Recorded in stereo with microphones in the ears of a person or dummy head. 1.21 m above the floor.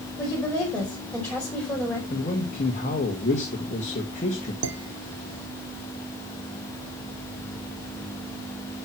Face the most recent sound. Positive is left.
turn(degrees=-85)